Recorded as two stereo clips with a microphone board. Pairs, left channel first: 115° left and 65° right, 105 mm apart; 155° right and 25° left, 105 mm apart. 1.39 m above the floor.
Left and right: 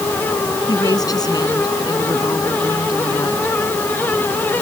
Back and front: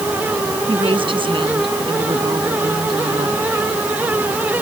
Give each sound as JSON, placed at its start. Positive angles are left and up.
{"t": 0.7, "sound": "a woman speaking", "azimuth_deg": 60}